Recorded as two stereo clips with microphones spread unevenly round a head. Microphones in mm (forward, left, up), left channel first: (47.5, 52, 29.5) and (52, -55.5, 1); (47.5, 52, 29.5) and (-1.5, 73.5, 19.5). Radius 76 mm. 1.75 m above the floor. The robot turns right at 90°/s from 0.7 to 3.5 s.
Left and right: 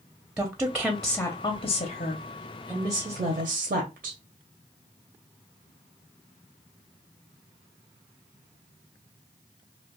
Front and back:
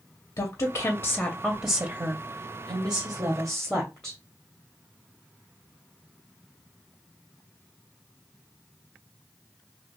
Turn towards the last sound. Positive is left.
turn(degrees=-105)